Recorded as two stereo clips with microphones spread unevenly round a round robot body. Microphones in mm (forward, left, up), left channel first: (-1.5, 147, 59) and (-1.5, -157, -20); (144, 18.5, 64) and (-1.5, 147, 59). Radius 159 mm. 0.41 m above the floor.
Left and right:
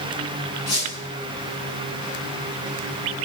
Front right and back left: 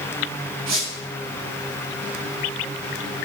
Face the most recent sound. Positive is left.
turn(degrees=130)